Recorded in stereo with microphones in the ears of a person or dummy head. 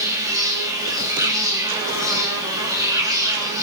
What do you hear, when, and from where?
0.0 s an insect: 15° right (ahead or behind), 4 m